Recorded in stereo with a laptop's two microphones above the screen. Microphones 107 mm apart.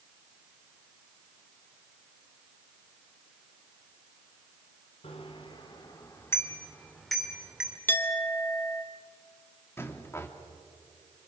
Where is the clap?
I don't hear a clap.